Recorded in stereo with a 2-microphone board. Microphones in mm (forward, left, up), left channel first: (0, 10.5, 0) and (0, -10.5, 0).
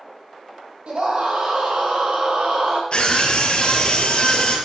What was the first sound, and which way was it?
A scream, 65° right (ahead or behind).